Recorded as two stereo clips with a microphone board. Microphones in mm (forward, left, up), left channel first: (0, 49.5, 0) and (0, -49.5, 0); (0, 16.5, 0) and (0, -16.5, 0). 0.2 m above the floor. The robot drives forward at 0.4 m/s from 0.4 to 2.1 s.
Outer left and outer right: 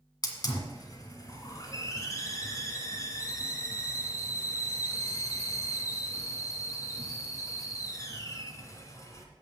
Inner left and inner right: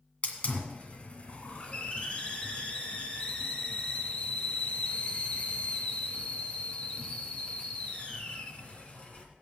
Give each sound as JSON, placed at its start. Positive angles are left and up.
{"t": 0.2, "sound": "a hiss", "side_deg": 45, "distance_m": 1.7}